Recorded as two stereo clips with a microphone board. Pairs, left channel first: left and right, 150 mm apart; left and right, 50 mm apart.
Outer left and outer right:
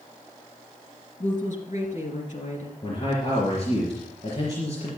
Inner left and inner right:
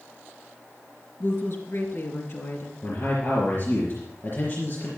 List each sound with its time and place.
1.2 s a woman speaking: 60° left (ahead or behind), 2.5 m
2.8 s a man speaking: 45° left (ahead or behind), 4 m